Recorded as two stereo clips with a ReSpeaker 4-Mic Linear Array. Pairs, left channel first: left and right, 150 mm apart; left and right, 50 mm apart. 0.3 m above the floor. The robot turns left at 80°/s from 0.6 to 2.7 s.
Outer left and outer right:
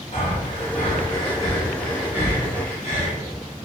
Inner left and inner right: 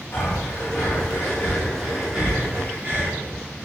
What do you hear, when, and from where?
0.1 s breathing: 50° left (ahead or behind), 1.8 m; by 3.1 s 45° right (ahead or behind), 1.8 m